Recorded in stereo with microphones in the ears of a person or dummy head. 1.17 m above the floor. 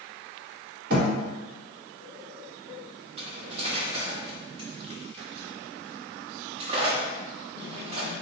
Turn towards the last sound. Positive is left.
turn(degrees=-35)  # may be behind; listen again after turning